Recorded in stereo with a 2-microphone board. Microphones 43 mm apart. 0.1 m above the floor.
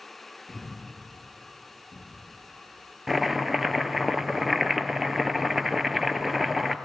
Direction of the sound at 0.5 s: 55° right (ahead or behind).